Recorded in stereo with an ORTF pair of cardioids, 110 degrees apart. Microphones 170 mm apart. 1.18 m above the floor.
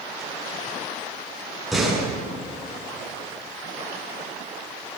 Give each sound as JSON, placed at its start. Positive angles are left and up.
{"t": 1.7, "sound": "a door slam", "azimuth_deg": 0, "distance_m": 8.5}